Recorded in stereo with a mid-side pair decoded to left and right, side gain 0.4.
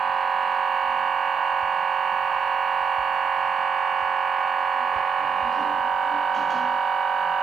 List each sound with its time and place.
0.0 s a machine running: 45° right, 1.2 m